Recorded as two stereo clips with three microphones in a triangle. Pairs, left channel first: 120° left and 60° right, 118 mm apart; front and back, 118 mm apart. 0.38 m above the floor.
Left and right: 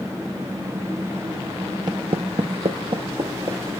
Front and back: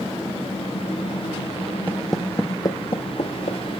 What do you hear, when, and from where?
1.9 s footsteps: 110° right, 0.8 m; by 3.6 s 20° right, 1.5 m